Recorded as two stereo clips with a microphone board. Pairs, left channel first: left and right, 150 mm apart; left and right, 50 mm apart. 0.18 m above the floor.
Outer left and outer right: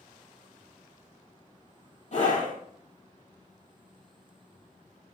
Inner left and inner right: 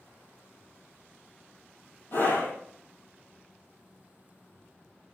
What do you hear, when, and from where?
2.1 s a scream: 55° left (ahead or behind), 5.5 m